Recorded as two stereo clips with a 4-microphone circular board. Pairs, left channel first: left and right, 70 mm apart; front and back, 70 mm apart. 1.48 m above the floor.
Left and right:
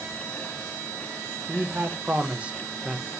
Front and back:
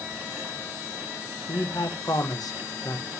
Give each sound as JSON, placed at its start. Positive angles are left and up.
{"t": 1.5, "sound": "a man speaking", "azimuth_deg": -40, "distance_m": 1.7}